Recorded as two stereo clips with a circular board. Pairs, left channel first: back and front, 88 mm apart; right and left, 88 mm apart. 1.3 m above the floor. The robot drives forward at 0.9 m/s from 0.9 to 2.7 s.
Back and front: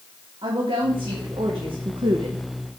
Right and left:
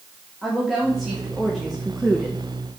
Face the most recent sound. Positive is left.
turn(degrees=-5)